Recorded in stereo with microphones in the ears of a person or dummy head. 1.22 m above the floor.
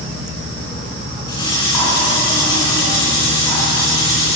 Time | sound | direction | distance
1.3 | cutlery clinking | 25° left (ahead or behind) | 8 m